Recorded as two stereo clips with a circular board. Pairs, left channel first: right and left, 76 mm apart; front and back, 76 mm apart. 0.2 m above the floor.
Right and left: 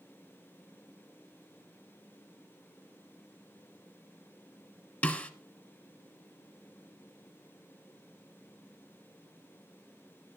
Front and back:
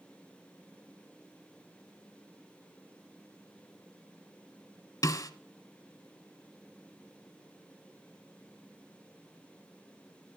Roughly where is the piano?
I don't hear a piano.